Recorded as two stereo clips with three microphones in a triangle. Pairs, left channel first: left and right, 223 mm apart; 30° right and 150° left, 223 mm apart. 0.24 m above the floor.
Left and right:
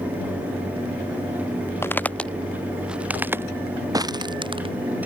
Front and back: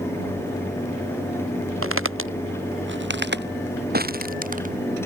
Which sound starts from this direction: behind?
Footsteps, at 1.8 s.